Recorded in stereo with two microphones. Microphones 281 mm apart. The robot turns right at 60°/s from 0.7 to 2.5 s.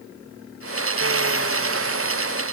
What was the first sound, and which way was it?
Only background noise.